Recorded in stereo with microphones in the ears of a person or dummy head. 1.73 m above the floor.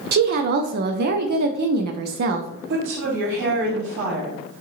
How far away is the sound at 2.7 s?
About 3 m.